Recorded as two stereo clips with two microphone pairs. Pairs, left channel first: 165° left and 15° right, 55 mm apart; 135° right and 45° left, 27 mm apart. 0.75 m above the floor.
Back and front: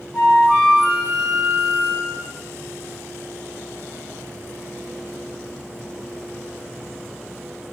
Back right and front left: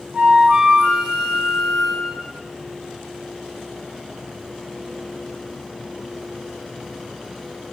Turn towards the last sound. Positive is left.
turn(degrees=95)